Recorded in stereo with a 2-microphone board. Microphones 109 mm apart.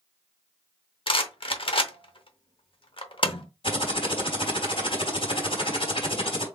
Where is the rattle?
55° left (ahead or behind), 0.8 m.